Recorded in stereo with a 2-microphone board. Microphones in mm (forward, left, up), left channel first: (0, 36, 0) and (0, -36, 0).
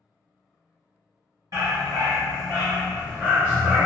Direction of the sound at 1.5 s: 55° right (ahead or behind).